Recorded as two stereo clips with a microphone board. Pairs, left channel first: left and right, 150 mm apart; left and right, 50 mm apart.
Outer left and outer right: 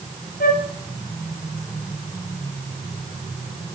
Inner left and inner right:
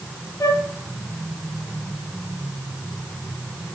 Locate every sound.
0.4 s a flute: 85° left, 4 m